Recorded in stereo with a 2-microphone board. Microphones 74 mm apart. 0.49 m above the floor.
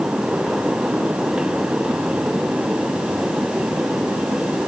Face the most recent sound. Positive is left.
No sound to turn to.